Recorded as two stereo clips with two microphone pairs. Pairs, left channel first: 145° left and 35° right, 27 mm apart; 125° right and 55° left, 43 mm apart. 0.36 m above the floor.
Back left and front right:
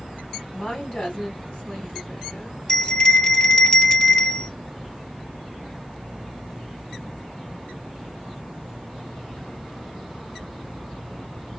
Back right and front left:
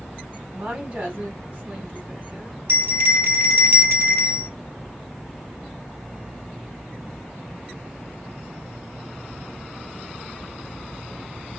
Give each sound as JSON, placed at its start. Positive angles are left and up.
{"t": 0.5, "sound": "a woman speaking", "azimuth_deg": 110, "distance_m": 2.0}
{"t": 2.7, "sound": "a bell", "azimuth_deg": 85, "distance_m": 0.8}